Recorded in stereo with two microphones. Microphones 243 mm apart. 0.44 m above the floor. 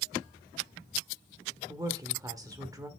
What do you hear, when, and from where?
1.7 s a woman speaking: 15° right (ahead or behind), 1.2 m